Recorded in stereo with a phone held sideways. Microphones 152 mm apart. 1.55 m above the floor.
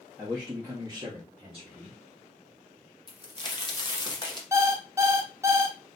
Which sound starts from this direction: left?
A crack, at 3.1 s.